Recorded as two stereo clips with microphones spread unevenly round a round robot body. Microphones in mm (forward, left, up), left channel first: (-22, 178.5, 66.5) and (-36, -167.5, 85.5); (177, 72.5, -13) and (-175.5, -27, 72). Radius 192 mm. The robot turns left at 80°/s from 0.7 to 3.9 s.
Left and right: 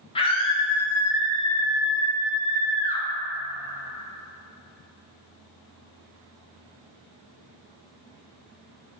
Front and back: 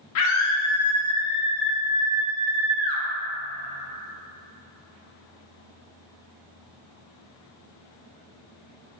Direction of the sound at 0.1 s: 20° left.